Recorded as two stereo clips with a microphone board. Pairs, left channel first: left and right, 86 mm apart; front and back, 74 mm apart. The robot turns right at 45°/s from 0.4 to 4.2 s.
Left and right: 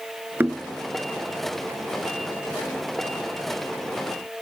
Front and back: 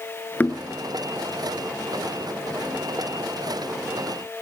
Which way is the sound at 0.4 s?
45° right.